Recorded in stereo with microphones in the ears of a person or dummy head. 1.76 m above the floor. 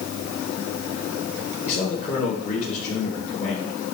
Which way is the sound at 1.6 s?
40° left (ahead or behind).